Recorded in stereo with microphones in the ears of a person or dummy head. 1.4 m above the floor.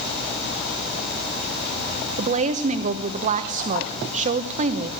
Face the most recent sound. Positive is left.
turn(degrees=-35)  # may be behind; listen again after turning